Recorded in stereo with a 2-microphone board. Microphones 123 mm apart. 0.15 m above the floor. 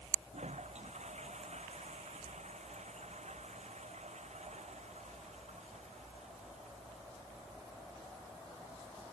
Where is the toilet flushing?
80° right.